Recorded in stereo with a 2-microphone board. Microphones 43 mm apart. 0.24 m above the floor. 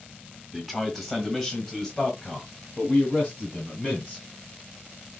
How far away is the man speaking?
About 1.6 m.